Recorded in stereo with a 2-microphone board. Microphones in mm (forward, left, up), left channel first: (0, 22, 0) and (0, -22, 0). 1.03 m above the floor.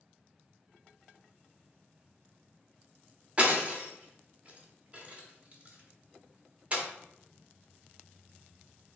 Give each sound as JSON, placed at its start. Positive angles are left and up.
{"t": 3.4, "sound": "breaking glass", "side_deg": -30, "distance_m": 1.4}